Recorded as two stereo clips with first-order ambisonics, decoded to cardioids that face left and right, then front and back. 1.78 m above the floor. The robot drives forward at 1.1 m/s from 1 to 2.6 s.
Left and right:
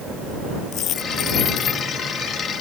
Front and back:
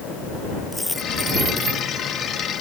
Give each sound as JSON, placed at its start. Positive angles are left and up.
{"t": 0.7, "sound": "a dropped coin", "azimuth_deg": 80}